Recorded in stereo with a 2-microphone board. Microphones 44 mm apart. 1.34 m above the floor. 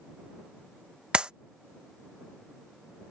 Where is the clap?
20° right (ahead or behind).